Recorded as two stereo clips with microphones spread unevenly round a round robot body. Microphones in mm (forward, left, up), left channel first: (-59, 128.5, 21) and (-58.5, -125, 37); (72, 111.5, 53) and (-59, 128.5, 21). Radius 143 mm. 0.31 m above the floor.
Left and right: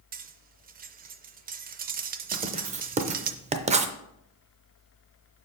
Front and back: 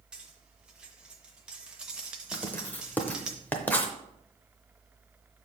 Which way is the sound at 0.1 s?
130° right.